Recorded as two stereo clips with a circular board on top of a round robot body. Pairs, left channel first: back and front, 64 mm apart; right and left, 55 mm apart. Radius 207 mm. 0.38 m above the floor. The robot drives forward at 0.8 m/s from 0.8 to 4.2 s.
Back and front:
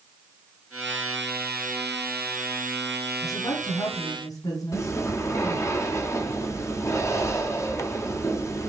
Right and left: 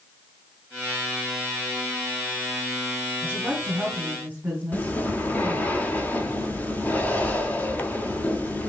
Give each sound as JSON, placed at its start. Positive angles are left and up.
{"t": 3.2, "sound": "a woman speaking", "azimuth_deg": 145, "distance_m": 4.0}
{"t": 4.7, "sound": "breathing", "azimuth_deg": -145, "distance_m": 1.4}